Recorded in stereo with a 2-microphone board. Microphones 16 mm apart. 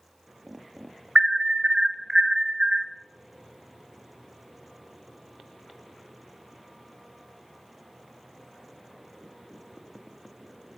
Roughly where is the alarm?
Right.